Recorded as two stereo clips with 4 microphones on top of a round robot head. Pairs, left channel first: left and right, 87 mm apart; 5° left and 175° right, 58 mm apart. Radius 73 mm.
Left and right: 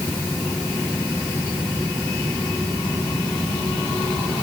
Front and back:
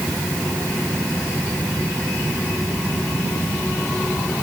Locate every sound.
Only background noise.